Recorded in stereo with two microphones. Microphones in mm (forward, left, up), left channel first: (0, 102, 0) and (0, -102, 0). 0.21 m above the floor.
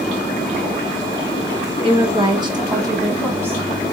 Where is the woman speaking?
30° right (ahead or behind), 1.1 m; by 3.6 s 10° right (ahead or behind), 1.5 m.